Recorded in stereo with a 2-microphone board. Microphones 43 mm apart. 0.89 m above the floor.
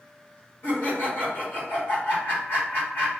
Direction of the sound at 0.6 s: 55° left (ahead or behind).